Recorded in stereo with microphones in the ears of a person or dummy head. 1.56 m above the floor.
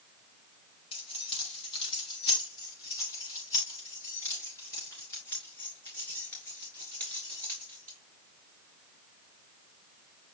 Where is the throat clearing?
I don't hear throat clearing.